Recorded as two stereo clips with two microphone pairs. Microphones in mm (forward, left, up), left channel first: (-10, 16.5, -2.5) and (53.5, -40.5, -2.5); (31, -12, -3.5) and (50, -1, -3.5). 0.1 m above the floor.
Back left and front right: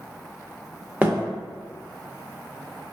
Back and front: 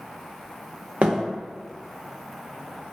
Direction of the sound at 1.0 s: 30° left.